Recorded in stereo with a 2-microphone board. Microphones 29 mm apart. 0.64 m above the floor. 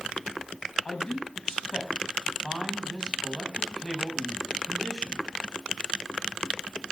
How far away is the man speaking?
About 5.5 m.